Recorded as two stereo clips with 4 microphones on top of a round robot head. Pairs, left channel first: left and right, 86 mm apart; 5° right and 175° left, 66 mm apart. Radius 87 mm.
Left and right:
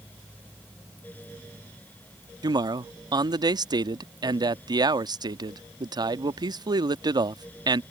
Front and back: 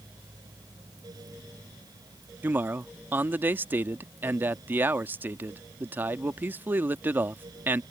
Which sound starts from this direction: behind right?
A man speaking, at 2.4 s.